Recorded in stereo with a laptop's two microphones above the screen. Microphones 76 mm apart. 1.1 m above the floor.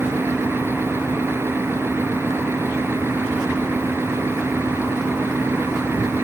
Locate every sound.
0.0 s a fan: 35° right (ahead or behind)